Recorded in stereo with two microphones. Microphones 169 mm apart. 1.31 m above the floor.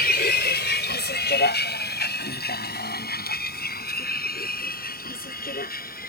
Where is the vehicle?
70° left (ahead or behind); by 6.1 s 60° left (ahead or behind).